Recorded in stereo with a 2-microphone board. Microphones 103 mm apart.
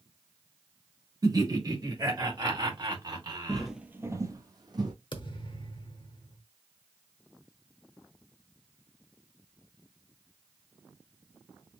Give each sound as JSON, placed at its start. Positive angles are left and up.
{"t": 1.2, "sound": "laughter", "side_deg": -35, "distance_m": 1.3}
{"t": 3.5, "sound": "footsteps", "side_deg": 5, "distance_m": 0.7}
{"t": 5.1, "sound": "a thud", "side_deg": 50, "distance_m": 0.7}